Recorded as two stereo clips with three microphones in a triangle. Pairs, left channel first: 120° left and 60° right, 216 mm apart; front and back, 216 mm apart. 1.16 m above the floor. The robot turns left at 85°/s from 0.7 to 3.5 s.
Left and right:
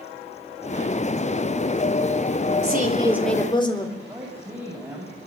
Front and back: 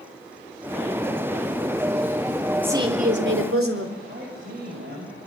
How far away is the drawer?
No drawer in this recording.